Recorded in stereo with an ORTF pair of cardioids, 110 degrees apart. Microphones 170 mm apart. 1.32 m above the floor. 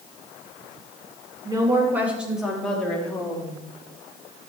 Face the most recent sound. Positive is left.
turn(degrees=15)